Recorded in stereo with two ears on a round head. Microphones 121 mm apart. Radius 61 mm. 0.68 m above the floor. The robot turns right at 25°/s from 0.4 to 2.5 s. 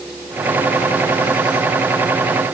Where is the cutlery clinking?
No cutlery clinking in this recording.